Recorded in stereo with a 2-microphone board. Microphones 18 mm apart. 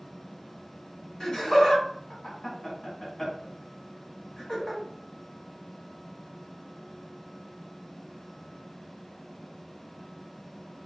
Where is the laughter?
45° left (ahead or behind), 1.4 m.